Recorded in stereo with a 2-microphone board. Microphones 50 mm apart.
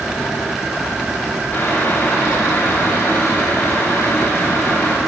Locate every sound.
1.5 s boiling: 40° left (ahead or behind), 6 m